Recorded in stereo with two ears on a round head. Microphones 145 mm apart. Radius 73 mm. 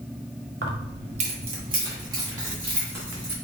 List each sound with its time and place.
0.6 s keys jangling: 65° right (ahead or behind), 0.9 m; by 3.3 s 10° right (ahead or behind), 2.5 m